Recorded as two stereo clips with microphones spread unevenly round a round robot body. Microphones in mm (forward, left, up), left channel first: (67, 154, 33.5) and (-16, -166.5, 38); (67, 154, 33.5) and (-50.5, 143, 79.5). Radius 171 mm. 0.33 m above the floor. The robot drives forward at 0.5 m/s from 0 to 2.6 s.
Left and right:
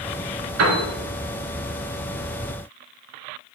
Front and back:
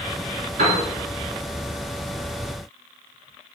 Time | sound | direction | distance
0.6 | a piano | 150° right | 2.5 m